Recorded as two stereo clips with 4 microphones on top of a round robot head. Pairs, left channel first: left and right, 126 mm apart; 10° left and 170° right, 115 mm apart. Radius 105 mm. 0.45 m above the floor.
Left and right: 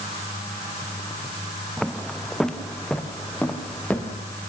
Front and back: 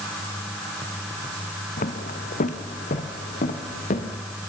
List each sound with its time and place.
1.8 s footsteps: straight ahead, 1.6 m; by 4.2 s 10° left, 3 m